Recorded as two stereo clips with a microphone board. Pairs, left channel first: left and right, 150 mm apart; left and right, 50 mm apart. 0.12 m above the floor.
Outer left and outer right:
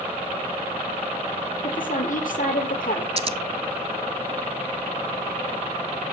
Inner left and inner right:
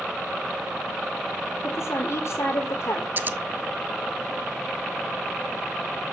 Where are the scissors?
40° right (ahead or behind), 0.5 m.